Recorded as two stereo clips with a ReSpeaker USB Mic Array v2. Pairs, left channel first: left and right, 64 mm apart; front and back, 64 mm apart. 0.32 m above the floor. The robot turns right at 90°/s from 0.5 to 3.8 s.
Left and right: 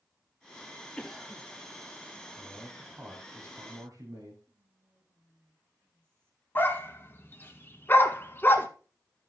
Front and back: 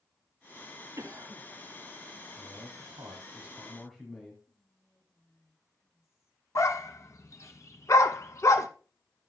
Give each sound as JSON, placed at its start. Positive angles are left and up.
{"t": 1.0, "sound": "a cough", "azimuth_deg": 160, "distance_m": 1.9}
{"t": 2.4, "sound": "a man speaking", "azimuth_deg": 140, "distance_m": 2.0}
{"t": 4.5, "sound": "whispering", "azimuth_deg": -35, "distance_m": 2.5}
{"t": 6.5, "sound": "a dog barking", "azimuth_deg": 35, "distance_m": 0.9}